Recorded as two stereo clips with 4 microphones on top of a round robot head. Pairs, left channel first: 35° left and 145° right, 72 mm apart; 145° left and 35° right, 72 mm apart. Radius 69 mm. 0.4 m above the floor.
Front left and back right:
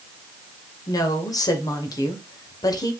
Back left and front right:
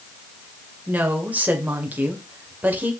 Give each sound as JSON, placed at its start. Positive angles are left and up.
{"t": 0.9, "sound": "a woman speaking", "azimuth_deg": 25, "distance_m": 2.0}